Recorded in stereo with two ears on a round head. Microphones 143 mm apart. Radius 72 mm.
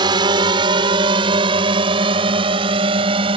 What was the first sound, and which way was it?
A drone, 30° right (ahead or behind).